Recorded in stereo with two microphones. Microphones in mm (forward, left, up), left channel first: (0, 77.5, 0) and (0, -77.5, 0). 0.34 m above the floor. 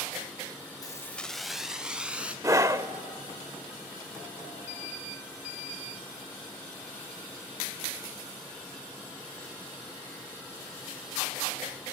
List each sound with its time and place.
0.8 s keys jangling: 25° left (ahead or behind), 0.5 m; by 2.3 s 10° right (ahead or behind), 2.5 m
2.4 s a scream: 20° right (ahead or behind), 0.9 m